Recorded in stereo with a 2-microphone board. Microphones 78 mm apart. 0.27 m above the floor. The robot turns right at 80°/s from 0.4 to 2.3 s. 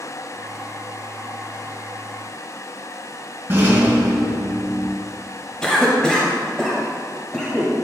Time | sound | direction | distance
3.5 | a rattle | 30° right (ahead or behind) | 1.7 m
5.6 | a cough | 10° left (ahead or behind) | 1.1 m